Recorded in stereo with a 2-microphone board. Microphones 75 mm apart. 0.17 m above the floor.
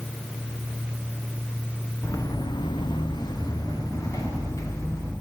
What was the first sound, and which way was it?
Footsteps, 40° left (ahead or behind).